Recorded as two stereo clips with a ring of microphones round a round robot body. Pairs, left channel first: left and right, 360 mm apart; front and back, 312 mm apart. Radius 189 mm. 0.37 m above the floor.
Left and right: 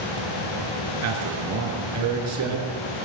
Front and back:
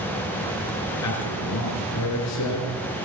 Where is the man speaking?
45° right, 5 m.